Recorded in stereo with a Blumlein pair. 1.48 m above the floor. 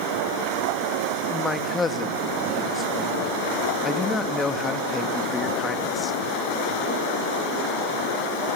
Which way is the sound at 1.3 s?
15° left.